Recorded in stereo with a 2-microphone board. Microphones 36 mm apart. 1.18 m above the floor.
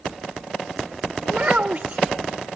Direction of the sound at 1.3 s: 45° right (ahead or behind).